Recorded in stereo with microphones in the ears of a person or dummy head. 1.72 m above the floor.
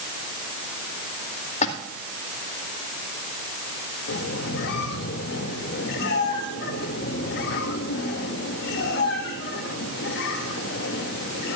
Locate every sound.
1.6 s a splash: 40° left (ahead or behind), 2 m
4.1 s a squeak: 65° left (ahead or behind), 2.0 m